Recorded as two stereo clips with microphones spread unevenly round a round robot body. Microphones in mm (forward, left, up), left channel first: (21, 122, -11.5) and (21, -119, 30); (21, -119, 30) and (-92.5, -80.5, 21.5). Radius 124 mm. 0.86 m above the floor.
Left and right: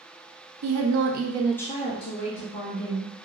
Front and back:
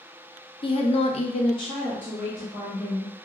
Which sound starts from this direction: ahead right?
A woman speaking, at 0.6 s.